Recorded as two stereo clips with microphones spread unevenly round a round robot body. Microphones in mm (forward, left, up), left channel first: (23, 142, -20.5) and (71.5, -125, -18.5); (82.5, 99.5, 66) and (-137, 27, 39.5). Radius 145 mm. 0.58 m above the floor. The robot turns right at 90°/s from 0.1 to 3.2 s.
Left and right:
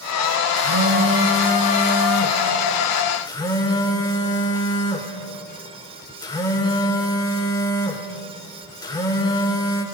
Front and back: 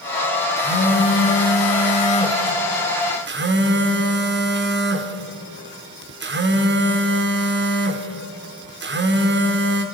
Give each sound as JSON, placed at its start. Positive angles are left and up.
{"t": 0.6, "sound": "a phone buzzing", "azimuth_deg": -60, "distance_m": 2.0}